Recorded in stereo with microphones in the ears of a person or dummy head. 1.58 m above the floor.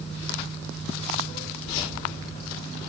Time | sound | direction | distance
1.6 | keys jangling | 35° left (ahead or behind) | 4 m